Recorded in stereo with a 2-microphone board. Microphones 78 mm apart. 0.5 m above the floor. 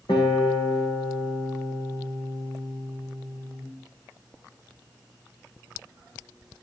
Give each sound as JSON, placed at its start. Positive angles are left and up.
{"t": 0.1, "sound": "a guitar", "side_deg": 75, "distance_m": 9.0}